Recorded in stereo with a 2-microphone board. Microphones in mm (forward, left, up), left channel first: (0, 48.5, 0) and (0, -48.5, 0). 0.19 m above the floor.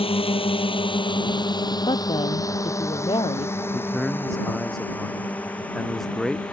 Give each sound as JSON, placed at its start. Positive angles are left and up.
{"t": 0.0, "sound": "a drone", "side_deg": 75}
{"t": 1.9, "sound": "a woman speaking", "side_deg": 60}
{"t": 3.7, "sound": "a man speaking", "side_deg": 5}